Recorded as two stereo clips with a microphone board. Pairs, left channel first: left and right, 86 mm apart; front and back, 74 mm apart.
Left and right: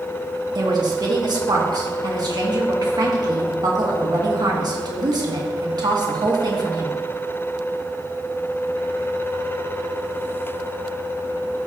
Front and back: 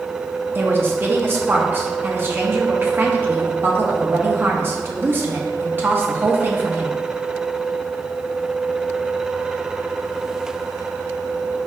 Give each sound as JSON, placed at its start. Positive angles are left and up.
{"t": 0.6, "sound": "a woman speaking", "azimuth_deg": -120, "distance_m": 1.6}